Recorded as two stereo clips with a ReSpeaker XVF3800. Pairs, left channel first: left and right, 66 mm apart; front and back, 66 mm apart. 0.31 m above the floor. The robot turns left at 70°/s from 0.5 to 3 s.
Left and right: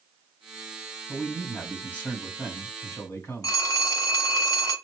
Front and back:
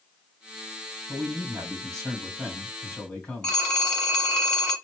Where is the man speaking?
155° right, 2 m; by 3.6 s 70° left, 2 m.